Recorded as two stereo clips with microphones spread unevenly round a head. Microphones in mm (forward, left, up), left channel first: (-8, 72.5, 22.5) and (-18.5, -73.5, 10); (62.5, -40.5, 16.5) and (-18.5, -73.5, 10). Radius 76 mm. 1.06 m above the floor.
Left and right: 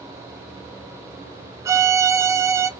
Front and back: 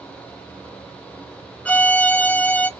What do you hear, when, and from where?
1.6 s a violin: 50° right, 0.5 m